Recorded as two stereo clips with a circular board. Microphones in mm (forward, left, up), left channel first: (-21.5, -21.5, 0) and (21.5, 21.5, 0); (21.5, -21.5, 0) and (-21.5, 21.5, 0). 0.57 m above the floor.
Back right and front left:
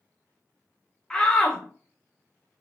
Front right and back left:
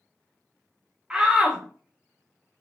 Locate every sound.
1.1 s a shout: 175° right, 0.7 m